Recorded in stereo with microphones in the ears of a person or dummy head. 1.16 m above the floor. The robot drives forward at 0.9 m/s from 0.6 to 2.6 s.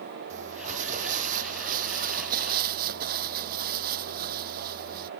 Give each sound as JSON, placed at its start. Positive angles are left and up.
{"t": 0.3, "sound": "crumpling", "side_deg": -40}